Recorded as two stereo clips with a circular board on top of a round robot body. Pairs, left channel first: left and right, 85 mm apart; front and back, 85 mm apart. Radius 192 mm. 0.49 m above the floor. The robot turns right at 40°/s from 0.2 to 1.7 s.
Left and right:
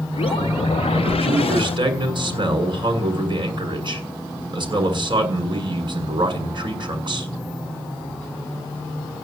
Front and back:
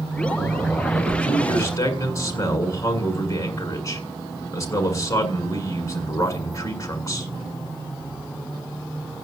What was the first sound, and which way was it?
A man speaking, 85° right.